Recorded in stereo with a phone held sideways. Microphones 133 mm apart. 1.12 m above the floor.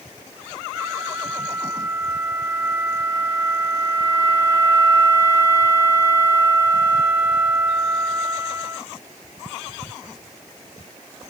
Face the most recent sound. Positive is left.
turn(degrees=-15)  # may be behind; listen again after turning